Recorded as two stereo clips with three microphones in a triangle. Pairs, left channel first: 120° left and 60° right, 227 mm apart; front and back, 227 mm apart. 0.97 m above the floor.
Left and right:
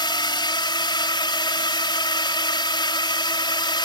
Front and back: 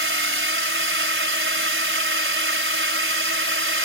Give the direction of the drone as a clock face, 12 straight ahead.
6 o'clock.